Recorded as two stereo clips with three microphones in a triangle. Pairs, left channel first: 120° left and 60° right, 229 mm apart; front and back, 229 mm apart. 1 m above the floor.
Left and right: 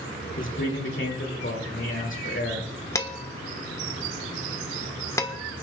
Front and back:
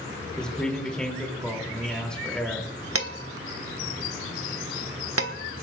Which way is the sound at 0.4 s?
85° left.